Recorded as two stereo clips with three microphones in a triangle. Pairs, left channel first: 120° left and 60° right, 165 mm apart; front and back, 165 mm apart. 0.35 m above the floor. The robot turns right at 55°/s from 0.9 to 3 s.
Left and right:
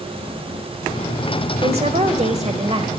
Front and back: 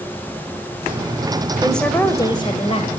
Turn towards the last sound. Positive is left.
turn(degrees=-15)